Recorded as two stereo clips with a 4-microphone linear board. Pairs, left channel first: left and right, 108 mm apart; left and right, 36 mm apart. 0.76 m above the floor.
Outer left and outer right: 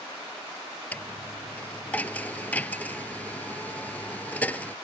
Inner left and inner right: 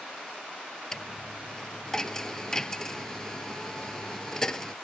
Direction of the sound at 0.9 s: 15° left (ahead or behind).